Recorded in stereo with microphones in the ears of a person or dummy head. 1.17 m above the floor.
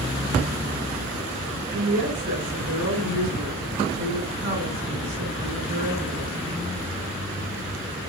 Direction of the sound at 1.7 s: 70° right (ahead or behind).